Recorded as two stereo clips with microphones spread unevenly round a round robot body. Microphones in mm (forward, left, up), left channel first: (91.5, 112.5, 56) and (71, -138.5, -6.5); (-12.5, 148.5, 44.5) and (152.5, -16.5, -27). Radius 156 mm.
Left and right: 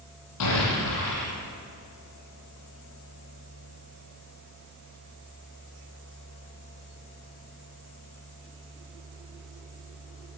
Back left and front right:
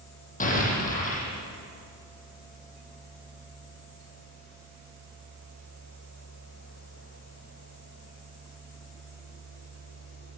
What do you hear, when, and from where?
0.4 s an explosion: 80° left, 10 m